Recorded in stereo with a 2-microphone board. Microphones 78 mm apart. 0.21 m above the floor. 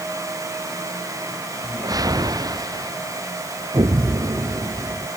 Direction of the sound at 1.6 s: 50° right (ahead or behind).